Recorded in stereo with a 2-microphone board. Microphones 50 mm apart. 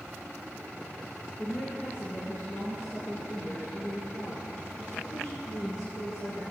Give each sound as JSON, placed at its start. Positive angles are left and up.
{"t": 1.4, "sound": "a woman speaking", "side_deg": 45, "distance_m": 3.0}